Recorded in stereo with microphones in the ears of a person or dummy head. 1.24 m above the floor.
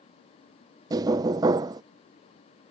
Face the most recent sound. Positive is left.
turn(degrees=-25)  # may be behind; listen again after turning